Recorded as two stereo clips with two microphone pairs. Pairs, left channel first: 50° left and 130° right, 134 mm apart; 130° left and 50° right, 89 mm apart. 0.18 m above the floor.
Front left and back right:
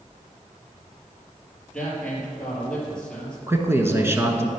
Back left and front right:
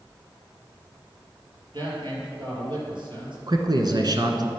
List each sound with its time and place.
1.7 s a man speaking: 35° right, 4.5 m
3.5 s a man speaking: 60° right, 1.7 m